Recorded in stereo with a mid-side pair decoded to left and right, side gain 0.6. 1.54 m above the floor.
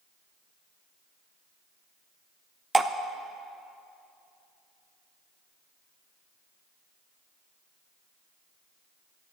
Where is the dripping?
15° right, 0.6 m.